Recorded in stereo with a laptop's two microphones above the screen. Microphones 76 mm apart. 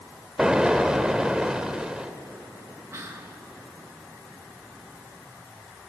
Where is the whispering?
40° right (ahead or behind), 0.9 m.